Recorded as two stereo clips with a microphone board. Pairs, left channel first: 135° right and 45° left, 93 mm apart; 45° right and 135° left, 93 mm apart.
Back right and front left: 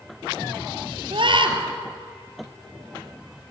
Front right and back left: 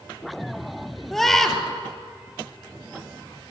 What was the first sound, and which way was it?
A scream, 40° left.